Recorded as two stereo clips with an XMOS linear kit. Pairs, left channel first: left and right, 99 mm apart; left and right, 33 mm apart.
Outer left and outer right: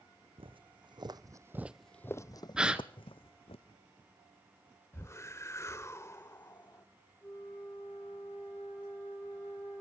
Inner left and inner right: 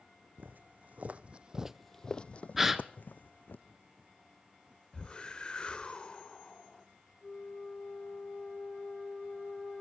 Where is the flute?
15° left (ahead or behind), 6.5 m.